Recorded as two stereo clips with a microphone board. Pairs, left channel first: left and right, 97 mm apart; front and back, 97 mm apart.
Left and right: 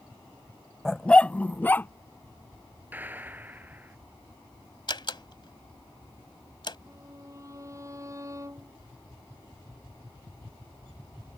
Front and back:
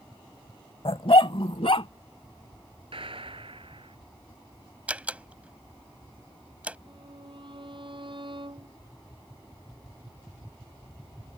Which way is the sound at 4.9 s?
105° left.